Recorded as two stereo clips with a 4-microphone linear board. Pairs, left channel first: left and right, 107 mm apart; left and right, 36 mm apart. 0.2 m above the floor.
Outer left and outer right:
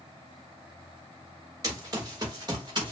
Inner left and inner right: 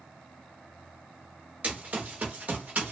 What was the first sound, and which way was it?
Running footsteps, 35° right (ahead or behind).